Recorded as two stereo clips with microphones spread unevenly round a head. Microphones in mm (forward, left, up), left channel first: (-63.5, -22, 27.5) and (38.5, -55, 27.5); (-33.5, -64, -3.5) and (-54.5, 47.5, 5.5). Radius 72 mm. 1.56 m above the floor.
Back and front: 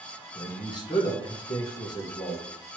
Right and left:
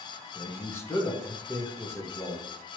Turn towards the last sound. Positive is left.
turn(degrees=-145)